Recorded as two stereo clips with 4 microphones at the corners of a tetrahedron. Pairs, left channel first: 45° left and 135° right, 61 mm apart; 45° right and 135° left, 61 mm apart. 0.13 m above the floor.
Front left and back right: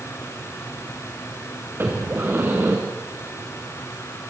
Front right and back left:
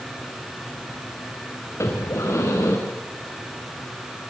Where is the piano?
I don't hear a piano.